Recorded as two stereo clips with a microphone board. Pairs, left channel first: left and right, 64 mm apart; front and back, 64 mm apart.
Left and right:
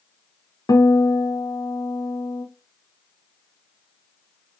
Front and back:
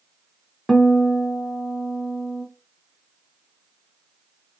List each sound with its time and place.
0.7 s a guitar: 90° left, 0.9 m